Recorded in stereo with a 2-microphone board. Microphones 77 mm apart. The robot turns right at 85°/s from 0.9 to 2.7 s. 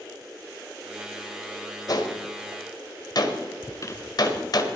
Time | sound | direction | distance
1.9 | a gunshot | 50° left (ahead or behind) | 1.7 m
3.6 | a squeak | 40° left (ahead or behind) | 0.8 m